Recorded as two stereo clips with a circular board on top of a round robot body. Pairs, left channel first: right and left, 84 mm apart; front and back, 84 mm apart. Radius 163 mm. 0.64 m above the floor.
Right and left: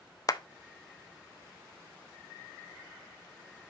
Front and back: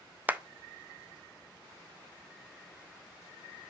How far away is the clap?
About 0.7 m.